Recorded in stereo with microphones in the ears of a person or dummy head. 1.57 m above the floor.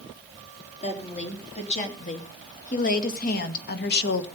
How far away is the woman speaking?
About 3.5 m.